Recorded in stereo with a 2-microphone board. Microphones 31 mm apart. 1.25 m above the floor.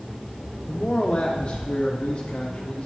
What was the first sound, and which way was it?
A man speaking, 30° left (ahead or behind).